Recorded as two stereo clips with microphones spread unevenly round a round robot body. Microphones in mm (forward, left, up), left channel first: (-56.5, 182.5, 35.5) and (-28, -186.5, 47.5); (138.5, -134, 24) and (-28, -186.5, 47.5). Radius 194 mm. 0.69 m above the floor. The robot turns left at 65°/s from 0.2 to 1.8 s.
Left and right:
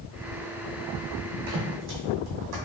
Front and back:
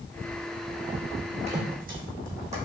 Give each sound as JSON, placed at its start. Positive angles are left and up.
{"t": 1.5, "sound": "footsteps", "azimuth_deg": -115, "distance_m": 2.0}